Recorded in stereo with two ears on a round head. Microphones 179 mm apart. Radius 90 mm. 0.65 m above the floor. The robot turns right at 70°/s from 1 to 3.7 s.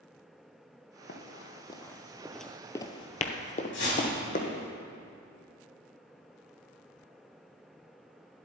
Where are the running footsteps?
55° left (ahead or behind), 1.4 m; by 4.7 s 45° left (ahead or behind), 1.8 m.